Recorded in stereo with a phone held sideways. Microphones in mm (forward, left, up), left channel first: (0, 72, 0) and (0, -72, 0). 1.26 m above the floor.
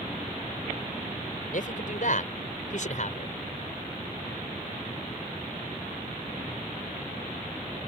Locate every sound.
1.5 s a man speaking: 65° left (ahead or behind); by 3.4 s 55° left (ahead or behind)